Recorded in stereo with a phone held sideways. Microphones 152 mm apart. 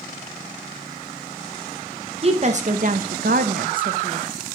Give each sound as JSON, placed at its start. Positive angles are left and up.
{"t": 2.2, "sound": "a woman speaking", "side_deg": -35, "distance_m": 0.7}